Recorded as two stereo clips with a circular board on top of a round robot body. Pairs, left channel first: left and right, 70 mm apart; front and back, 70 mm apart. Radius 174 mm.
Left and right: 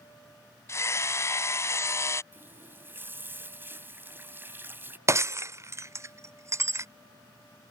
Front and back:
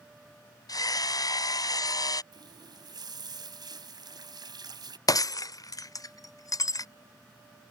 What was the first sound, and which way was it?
Hammering, 35° left.